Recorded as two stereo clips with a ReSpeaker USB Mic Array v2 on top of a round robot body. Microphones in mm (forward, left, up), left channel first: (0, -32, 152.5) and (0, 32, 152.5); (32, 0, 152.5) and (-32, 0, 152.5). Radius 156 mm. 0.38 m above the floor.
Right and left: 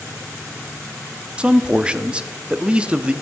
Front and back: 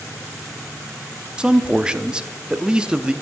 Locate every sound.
1.4 s a man speaking: 130° left, 0.8 m